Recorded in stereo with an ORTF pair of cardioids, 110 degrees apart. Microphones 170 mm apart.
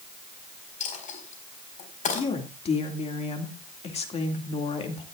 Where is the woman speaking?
35° left, 2 m.